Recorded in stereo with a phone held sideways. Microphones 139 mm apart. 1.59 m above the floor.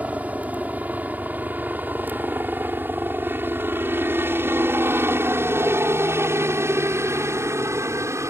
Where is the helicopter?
10° right (ahead or behind); by 8.3 s 20° right (ahead or behind).